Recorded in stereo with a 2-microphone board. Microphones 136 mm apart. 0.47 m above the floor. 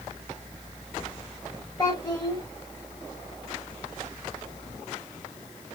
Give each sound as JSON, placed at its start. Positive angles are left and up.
{"t": 1.8, "sound": "a child speaking", "side_deg": 20, "distance_m": 1.0}